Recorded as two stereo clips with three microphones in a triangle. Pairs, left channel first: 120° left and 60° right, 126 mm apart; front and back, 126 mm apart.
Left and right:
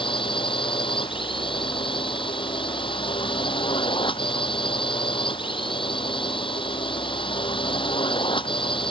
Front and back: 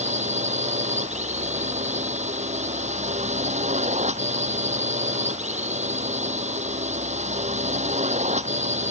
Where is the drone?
165° left.